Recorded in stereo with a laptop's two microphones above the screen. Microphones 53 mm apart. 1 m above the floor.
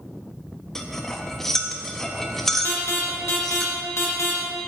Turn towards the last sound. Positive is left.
turn(degrees=60)  # may be behind; listen again after turning